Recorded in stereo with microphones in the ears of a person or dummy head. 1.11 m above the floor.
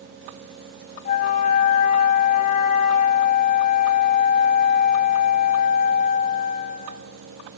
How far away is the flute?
About 0.8 m.